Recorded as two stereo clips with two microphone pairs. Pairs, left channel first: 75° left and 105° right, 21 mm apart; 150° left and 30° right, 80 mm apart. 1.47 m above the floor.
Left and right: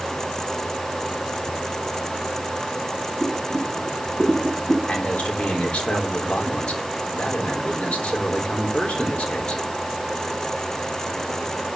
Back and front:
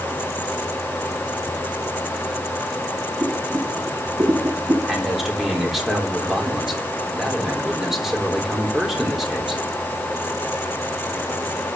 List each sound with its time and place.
3.2 s boiling: 30° left, 5 m
4.9 s a man speaking: 55° left, 3.5 m